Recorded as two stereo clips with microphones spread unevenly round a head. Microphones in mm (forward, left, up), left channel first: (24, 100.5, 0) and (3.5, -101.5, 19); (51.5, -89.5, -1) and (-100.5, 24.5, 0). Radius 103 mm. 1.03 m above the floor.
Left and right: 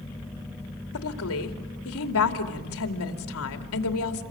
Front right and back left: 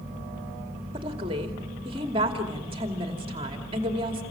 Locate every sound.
0.9 s a woman speaking: 75° left, 2.5 m